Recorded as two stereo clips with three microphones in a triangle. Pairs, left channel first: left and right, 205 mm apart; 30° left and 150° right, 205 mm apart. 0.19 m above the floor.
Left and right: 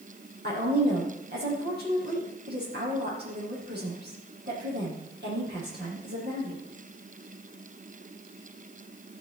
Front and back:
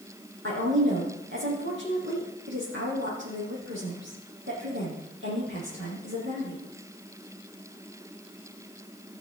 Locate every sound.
0.4 s a woman speaking: 125° right, 6.5 m